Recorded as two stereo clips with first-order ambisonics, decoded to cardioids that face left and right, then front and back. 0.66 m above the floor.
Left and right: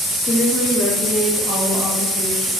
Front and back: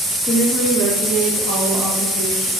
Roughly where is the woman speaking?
Ahead left.